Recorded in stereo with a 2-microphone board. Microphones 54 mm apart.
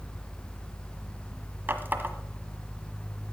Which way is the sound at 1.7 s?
40° right (ahead or behind).